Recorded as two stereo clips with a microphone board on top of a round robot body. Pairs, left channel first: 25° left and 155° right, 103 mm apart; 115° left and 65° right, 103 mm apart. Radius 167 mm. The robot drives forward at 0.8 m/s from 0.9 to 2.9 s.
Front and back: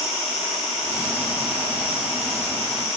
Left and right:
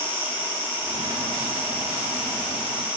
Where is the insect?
5° left, 4 m; by 3.0 s 10° left, 2.5 m.